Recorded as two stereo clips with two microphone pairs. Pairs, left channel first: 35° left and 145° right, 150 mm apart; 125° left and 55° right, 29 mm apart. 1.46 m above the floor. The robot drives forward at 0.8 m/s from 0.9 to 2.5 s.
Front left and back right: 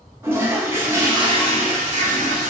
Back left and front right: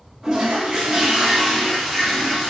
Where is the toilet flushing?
85° right, 0.8 m; by 2.5 s 165° right, 1.5 m.